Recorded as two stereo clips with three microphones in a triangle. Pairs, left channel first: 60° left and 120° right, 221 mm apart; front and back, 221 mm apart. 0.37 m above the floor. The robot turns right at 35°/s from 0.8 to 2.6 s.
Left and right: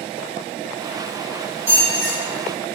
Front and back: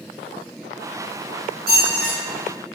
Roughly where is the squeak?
Behind right.